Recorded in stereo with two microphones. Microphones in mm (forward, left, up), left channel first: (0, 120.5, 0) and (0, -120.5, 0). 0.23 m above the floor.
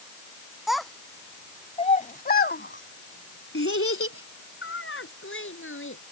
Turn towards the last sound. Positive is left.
turn(degrees=55)  # may be behind; listen again after turning